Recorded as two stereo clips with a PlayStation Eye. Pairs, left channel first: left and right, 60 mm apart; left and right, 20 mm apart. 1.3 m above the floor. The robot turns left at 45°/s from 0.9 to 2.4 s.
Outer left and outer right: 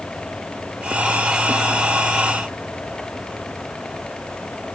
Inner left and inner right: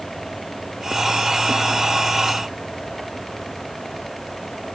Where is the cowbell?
I don't hear a cowbell.